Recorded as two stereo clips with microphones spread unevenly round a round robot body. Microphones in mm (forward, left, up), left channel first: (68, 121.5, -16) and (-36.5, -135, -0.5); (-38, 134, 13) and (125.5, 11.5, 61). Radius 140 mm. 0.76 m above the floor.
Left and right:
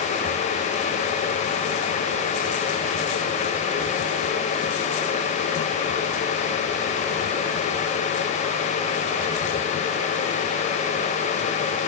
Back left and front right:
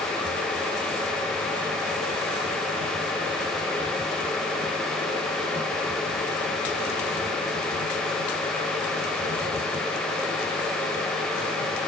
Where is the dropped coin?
I don't hear a dropped coin.